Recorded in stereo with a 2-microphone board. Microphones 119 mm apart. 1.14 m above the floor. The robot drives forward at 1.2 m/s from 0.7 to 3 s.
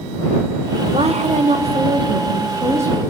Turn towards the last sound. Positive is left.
turn(degrees=-20)  # may be behind; listen again after turning